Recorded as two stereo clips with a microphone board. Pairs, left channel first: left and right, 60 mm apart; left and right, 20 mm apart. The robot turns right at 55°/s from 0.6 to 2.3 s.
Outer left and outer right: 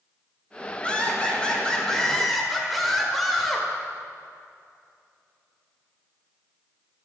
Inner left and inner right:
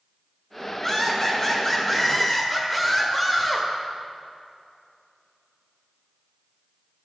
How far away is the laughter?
About 1.3 m.